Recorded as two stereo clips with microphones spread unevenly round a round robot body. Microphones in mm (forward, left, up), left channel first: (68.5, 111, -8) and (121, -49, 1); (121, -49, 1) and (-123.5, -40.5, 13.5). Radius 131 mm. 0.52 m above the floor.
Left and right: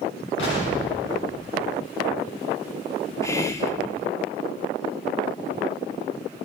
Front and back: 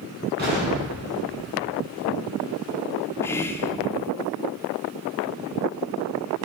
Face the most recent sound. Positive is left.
turn(degrees=60)